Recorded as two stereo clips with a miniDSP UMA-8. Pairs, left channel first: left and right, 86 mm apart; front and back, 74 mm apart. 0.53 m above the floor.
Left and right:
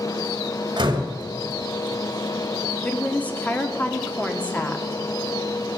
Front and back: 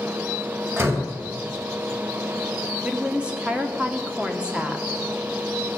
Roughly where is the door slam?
Behind right.